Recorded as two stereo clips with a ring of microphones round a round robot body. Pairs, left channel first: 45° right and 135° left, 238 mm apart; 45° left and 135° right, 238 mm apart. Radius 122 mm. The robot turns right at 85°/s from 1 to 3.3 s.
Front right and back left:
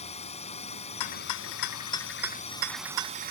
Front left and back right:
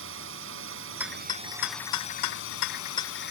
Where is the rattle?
55° right; by 3.3 s 140° left.